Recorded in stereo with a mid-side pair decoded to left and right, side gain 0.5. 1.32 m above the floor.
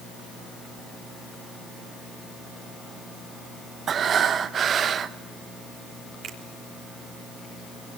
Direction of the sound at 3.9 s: 50° right.